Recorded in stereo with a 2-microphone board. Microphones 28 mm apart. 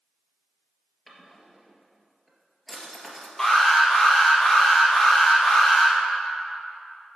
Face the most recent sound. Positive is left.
turn(degrees=10)  # may be behind; listen again after turning